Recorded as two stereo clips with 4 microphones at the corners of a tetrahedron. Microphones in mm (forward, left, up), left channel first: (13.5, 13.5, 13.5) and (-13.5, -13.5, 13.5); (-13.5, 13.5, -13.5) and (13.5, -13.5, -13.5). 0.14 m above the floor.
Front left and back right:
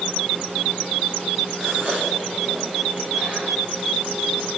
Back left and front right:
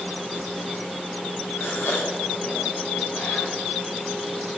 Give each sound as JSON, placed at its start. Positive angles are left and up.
{"t": 1.6, "sound": "a gasp", "azimuth_deg": 160, "distance_m": 7.5}